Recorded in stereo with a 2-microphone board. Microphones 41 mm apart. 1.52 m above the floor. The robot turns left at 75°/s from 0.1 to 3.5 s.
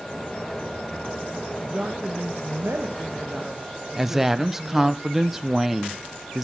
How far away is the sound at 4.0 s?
About 1.0 m.